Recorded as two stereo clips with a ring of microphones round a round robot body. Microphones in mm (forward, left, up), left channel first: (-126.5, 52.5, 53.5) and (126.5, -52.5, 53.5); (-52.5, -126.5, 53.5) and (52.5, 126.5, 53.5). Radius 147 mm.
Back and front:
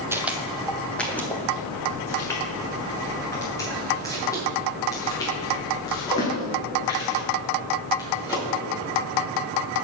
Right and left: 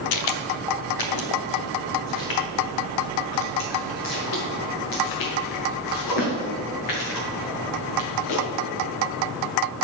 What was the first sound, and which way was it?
Footsteps, 105° right.